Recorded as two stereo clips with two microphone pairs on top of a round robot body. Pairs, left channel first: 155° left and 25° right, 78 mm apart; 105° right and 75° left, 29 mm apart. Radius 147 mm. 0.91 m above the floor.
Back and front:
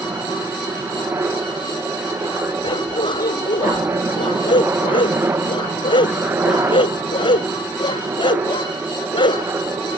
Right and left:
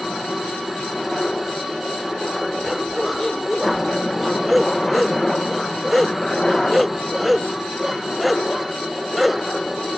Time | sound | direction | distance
0.0 | a helicopter | 35° right | ?
2.6 | a dog barking | 165° left | ?